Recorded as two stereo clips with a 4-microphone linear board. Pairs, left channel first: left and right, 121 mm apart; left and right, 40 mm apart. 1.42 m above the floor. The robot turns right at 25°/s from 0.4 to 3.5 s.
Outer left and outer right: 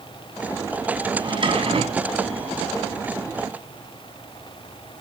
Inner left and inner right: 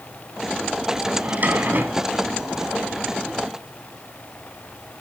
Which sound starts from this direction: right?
A drawer, at 1.2 s.